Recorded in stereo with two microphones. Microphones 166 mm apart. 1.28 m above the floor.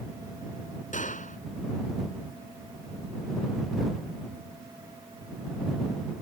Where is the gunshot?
50° left (ahead or behind).